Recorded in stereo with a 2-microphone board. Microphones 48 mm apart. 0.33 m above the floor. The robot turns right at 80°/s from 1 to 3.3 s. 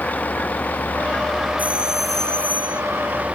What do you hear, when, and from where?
0.0 s a vehicle: 145° left; by 3.4 s 30° right
1.6 s a doorbell: 40° right; by 2.8 s 60° left